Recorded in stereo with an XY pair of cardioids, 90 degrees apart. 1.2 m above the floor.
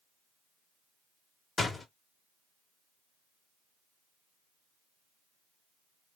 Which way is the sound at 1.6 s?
40° left.